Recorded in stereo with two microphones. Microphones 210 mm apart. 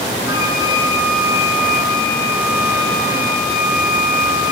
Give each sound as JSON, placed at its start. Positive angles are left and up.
{"t": 0.3, "sound": "a flute", "side_deg": -20, "distance_m": 7.5}